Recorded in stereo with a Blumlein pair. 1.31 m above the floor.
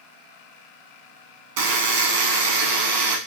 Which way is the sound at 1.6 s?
50° right.